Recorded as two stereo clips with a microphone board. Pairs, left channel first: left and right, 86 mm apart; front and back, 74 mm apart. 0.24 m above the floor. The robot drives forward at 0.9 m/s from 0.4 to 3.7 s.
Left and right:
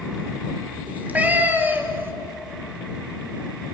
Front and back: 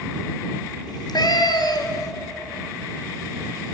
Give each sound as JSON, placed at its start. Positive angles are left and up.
{"t": 0.9, "sound": "a cat meowing", "azimuth_deg": -15, "distance_m": 3.0}